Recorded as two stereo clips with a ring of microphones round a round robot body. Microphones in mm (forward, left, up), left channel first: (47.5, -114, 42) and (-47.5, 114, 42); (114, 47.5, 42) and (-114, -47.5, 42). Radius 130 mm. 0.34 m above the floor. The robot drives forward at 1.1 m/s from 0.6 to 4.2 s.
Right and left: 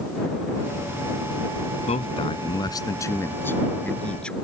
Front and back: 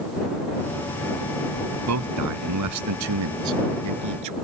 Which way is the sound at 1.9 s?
135° right.